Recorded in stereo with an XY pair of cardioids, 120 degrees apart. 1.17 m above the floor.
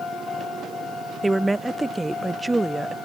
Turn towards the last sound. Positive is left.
turn(degrees=-15)